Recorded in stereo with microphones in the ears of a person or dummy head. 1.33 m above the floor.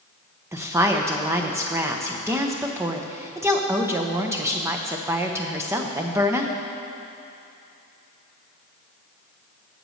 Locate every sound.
0.5 s a woman speaking: 15° right (ahead or behind), 0.7 m